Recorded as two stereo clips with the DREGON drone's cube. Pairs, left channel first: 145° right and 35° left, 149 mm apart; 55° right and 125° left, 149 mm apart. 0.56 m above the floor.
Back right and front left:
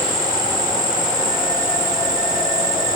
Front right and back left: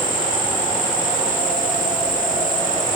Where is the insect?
30° right, 2.5 m.